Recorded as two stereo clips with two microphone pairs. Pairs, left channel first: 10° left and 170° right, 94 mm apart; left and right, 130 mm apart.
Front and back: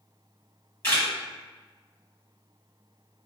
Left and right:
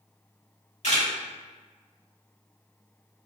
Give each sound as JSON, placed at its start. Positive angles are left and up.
{"t": 0.8, "sound": "a camera shutter", "azimuth_deg": 70, "distance_m": 1.7}